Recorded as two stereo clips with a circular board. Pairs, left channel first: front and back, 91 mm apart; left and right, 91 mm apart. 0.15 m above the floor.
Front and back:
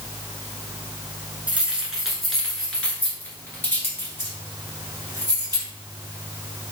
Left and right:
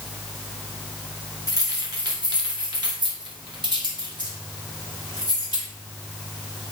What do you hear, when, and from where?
1.5 s keys jangling: 110° right, 1.3 m; by 5.7 s 50° right, 2.5 m